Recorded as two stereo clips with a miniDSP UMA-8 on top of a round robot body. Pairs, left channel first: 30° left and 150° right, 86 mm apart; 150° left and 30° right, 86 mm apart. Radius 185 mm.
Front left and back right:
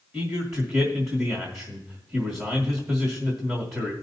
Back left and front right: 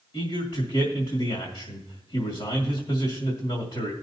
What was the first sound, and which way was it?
A man speaking, 155° left.